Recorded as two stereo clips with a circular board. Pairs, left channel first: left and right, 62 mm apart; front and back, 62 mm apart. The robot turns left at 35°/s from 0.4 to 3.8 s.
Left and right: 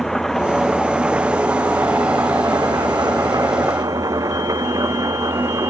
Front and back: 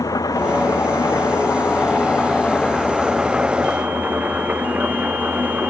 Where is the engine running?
5° left; by 5.7 s 110° right.